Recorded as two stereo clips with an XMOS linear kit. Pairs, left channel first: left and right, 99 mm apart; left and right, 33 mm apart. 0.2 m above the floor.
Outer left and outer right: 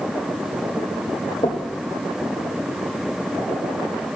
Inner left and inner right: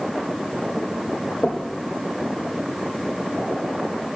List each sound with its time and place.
1.4 s knocking: 75° left (ahead or behind), 4.5 m